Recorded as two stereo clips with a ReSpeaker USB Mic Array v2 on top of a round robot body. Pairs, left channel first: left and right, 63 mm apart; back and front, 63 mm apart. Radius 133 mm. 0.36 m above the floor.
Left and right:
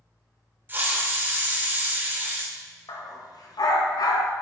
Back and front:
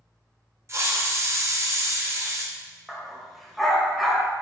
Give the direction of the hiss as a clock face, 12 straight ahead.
1 o'clock.